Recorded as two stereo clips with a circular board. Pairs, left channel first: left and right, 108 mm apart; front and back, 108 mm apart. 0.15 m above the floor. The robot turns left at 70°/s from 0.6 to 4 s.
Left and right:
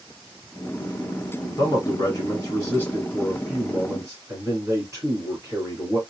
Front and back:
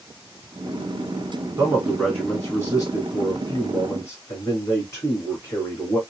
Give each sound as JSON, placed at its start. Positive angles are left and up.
{"t": 1.6, "sound": "a man speaking", "azimuth_deg": 125, "distance_m": 1.8}